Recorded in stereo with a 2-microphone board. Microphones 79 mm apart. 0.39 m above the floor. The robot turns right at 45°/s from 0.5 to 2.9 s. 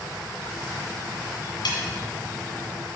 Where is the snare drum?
75° left (ahead or behind), 1.7 m.